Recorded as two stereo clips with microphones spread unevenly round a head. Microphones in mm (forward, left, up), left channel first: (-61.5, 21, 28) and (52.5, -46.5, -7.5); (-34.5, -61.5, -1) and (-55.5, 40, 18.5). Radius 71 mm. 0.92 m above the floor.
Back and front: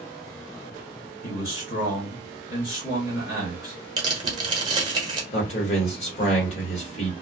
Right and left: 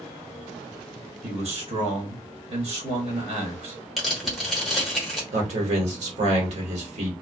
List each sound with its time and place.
1.2 s a man speaking: 125° left, 1.4 m
4.0 s tearing paper: 5° left, 1.1 m
5.3 s a man speaking: 100° left, 1.4 m